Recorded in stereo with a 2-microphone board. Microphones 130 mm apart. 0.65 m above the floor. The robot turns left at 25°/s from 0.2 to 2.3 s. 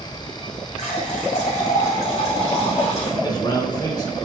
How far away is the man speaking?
About 2.5 m.